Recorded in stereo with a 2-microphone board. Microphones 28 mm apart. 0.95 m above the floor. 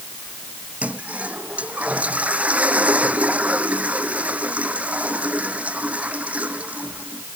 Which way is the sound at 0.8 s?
55° right (ahead or behind).